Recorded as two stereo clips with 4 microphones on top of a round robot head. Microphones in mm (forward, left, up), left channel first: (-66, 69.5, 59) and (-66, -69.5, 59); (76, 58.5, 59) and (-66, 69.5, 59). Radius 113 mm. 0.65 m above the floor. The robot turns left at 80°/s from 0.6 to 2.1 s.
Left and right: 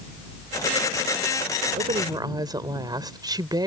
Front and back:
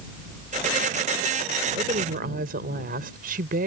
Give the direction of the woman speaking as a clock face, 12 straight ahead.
4 o'clock.